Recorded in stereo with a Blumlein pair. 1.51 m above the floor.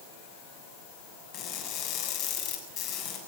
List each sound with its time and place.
1.3 s crushing: 35° left, 7.5 m